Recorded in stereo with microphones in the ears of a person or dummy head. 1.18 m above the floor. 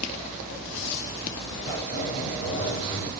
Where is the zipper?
45° left (ahead or behind), 1.7 m.